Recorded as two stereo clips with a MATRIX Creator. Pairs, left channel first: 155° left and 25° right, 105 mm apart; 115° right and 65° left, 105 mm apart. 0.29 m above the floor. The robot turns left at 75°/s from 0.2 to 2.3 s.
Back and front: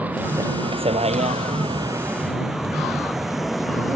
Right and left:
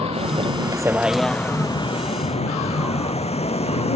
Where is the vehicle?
50° left; by 4.0 s 110° right.